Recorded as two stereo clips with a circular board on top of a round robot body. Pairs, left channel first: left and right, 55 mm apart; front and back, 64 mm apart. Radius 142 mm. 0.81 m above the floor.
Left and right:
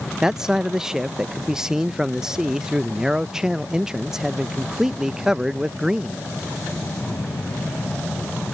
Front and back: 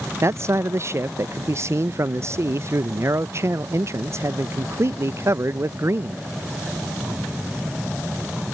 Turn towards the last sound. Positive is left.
turn(degrees=-165)